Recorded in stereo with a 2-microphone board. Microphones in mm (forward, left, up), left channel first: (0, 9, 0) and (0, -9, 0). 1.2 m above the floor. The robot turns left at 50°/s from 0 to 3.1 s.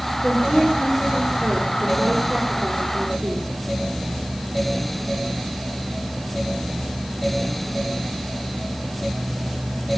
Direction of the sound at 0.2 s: 35° left.